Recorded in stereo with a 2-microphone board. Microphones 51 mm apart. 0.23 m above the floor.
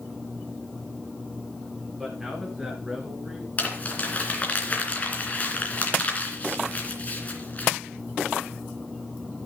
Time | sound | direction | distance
2.0 | a man speaking | 15° right (ahead or behind) | 3 m
3.6 | crumpling | 30° left (ahead or behind) | 2.5 m